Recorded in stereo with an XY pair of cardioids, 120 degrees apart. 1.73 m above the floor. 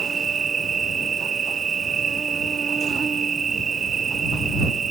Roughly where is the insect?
Ahead right.